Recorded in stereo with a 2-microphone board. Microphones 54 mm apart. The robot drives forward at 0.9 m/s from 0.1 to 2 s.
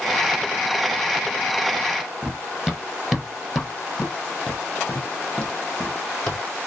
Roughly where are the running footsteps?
Centre.